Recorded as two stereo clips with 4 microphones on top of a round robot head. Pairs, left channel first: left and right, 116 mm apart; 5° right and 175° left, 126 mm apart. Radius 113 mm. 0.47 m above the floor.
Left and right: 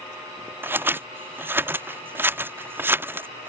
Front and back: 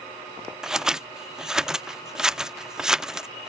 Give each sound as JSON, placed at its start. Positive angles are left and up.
{"t": 0.6, "sound": "scissors", "azimuth_deg": -115}